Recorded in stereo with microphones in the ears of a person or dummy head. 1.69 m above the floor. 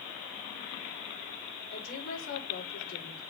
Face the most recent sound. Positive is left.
turn(degrees=70)  # may be behind; listen again after turning